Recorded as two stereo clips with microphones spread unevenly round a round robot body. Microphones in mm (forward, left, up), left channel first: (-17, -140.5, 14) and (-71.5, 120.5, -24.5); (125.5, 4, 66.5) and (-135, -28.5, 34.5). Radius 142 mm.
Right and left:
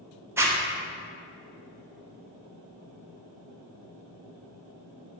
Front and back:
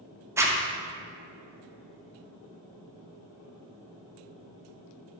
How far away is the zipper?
About 0.9 m.